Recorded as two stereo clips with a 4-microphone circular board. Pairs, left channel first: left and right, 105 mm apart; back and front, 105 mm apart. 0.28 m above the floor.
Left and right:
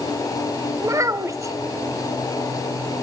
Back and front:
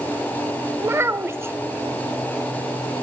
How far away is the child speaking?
About 0.5 m.